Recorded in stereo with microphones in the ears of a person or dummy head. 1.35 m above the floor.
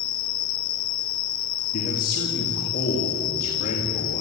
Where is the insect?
30° left (ahead or behind), 0.8 m.